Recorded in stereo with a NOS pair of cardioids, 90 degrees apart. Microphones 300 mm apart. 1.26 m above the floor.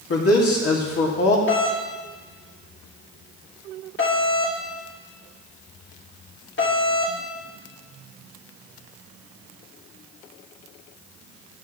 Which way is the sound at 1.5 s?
40° left.